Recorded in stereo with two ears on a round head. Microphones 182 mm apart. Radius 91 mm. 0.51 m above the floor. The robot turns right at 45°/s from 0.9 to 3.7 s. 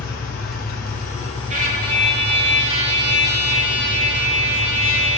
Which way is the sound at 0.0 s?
125° left.